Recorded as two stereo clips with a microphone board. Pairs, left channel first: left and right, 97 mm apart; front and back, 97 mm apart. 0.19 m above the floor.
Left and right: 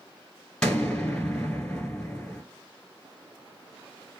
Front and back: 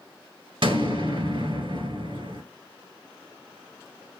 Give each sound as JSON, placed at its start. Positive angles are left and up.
{"t": 0.6, "sound": "an explosion", "azimuth_deg": 165, "distance_m": 1.2}